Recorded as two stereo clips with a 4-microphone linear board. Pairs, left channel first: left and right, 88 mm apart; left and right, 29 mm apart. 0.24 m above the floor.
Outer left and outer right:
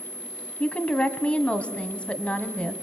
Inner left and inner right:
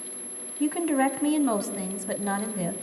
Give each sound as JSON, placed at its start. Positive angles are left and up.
{"t": 0.6, "sound": "a woman speaking", "side_deg": 15, "distance_m": 1.7}